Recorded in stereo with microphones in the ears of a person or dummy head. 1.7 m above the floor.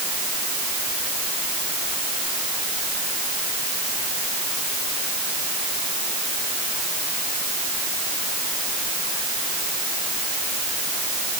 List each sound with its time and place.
Only background noise.